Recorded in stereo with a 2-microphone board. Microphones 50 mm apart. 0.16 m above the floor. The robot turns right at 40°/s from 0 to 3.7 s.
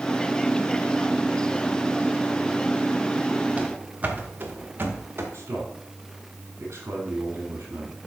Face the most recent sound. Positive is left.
turn(degrees=-65)  # may be behind; listen again after turning